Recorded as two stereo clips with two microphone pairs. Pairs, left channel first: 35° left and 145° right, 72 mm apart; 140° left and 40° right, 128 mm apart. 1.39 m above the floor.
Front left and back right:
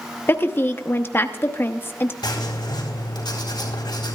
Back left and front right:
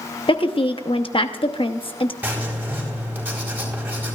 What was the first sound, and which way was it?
A woman speaking, 95° left.